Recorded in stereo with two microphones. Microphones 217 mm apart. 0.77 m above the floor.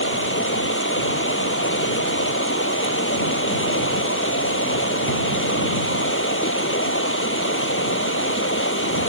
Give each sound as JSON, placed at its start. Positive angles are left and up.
{"t": 0.0, "sound": "running water", "side_deg": 65}